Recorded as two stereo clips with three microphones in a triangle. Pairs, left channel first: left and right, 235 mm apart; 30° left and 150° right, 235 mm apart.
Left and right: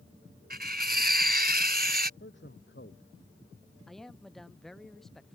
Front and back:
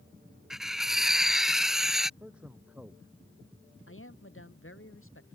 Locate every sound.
0.5 s cutlery clinking: 60° right
2.2 s a man speaking: 125° left
3.9 s a man speaking: straight ahead